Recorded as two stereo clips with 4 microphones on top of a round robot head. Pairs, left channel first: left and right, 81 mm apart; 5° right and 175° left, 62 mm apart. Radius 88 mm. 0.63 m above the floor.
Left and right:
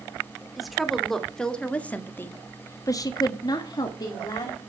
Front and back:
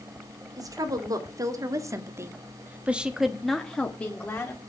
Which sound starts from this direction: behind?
A woman speaking, at 0.6 s.